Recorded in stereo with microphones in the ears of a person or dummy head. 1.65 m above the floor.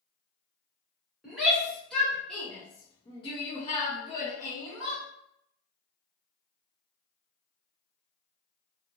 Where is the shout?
Centre (ahead or behind), 1.5 m; by 5.0 s 15° left (ahead or behind), 1.2 m.